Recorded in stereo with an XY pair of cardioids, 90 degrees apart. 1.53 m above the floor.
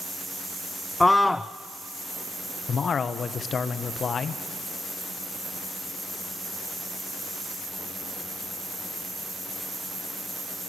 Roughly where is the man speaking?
Ahead left.